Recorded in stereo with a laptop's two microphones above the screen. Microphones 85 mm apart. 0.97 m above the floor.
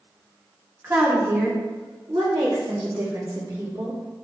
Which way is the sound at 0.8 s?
30° right (ahead or behind).